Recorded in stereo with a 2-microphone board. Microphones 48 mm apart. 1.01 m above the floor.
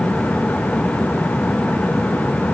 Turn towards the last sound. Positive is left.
No sound to turn to.